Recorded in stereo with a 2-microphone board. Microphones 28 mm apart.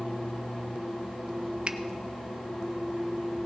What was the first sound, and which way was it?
A finger snap, 40° right (ahead or behind).